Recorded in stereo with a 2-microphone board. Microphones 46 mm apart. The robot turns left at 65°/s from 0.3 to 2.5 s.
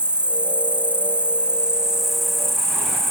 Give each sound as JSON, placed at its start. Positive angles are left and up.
{"t": 0.0, "sound": "an insect", "azimuth_deg": -55}